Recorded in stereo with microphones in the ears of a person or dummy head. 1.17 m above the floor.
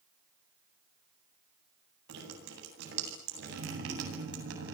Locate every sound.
2.1 s dripping: 75° right (ahead or behind), 8.5 m